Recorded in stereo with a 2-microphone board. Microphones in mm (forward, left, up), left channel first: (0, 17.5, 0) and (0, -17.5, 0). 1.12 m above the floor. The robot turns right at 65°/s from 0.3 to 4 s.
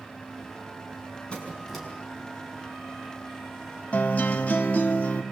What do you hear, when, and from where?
1.3 s a squeak: 150° left, 6 m; by 1.9 s 175° right, 6 m
3.9 s a guitar: 40° left (ahead or behind), 1.5 m; by 5.2 s 45° left (ahead or behind), 1.5 m